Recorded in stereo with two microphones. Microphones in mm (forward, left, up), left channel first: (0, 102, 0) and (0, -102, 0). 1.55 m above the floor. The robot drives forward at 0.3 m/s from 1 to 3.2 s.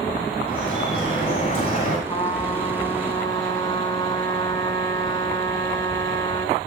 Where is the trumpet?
20° left (ahead or behind), 6.5 m.